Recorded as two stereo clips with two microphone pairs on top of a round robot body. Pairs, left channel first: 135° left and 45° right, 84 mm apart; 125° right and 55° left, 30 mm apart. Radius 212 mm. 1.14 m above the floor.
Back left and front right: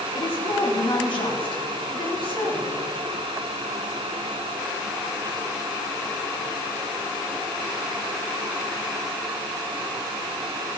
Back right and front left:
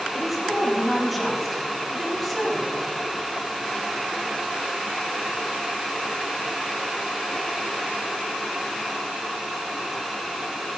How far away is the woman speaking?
About 4 m.